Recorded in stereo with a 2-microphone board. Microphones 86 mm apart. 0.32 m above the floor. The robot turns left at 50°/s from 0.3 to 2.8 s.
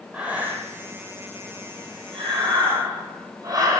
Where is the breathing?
15° right (ahead or behind), 2 m; by 3.8 s 40° right (ahead or behind), 2 m.